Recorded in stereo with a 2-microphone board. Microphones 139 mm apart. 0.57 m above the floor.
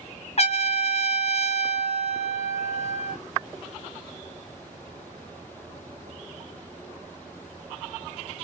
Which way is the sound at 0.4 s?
50° left (ahead or behind).